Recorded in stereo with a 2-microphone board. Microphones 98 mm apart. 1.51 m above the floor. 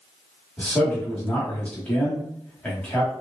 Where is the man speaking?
15° left (ahead or behind), 1.3 m.